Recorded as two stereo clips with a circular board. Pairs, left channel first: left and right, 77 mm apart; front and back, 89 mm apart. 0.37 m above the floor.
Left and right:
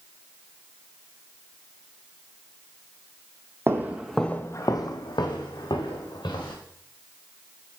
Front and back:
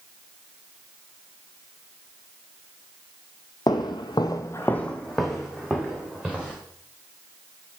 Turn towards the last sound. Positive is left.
turn(degrees=100)